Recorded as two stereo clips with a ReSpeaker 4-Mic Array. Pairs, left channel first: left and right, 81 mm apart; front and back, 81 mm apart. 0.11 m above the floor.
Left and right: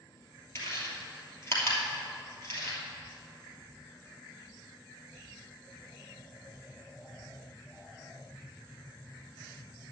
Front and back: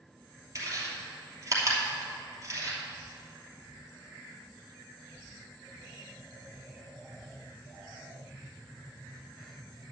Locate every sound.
0.6 s chewing: 140° left, 2.5 m